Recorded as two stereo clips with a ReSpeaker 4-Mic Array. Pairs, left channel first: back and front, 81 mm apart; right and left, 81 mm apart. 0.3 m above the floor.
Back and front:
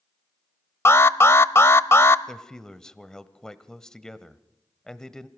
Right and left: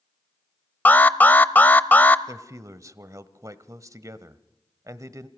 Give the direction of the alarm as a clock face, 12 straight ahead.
5 o'clock.